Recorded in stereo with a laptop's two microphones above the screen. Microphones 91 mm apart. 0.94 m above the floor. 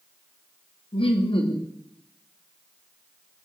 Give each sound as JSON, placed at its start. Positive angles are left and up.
{"t": 0.9, "sound": "laughter", "side_deg": 70, "distance_m": 1.1}